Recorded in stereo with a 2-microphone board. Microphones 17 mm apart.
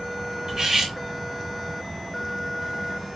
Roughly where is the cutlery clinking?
Right.